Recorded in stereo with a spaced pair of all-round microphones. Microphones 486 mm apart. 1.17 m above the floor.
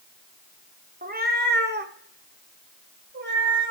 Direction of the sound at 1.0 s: 20° right (ahead or behind).